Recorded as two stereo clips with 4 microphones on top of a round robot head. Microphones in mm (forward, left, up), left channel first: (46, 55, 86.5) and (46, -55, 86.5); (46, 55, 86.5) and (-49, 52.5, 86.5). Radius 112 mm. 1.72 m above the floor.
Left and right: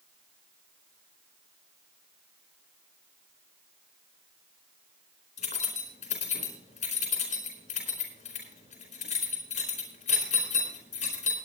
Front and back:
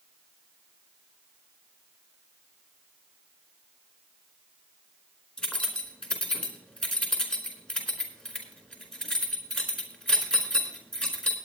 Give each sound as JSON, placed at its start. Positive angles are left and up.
{"t": 5.4, "sound": "keys jangling", "azimuth_deg": 80, "distance_m": 4.0}